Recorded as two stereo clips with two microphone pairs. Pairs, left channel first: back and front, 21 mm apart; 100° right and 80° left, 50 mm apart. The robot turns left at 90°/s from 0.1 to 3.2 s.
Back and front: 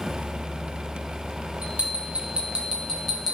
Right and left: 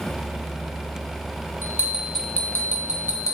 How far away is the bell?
About 2.5 m.